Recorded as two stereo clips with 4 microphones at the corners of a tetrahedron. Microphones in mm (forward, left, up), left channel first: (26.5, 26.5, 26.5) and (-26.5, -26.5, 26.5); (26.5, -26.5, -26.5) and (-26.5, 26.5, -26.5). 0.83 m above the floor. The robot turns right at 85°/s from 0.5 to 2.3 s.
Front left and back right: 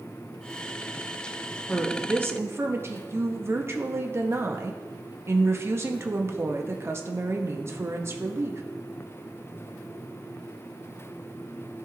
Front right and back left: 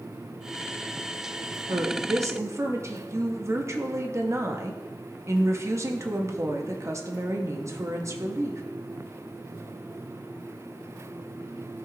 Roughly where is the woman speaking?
Behind left.